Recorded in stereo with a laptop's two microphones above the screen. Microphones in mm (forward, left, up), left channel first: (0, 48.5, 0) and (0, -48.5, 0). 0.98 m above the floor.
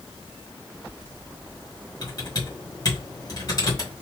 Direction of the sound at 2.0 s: 40° left (ahead or behind).